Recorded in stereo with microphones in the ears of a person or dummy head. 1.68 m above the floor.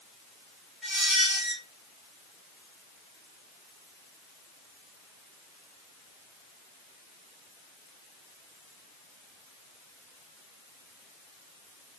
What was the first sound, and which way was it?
A squeak, centre (ahead or behind).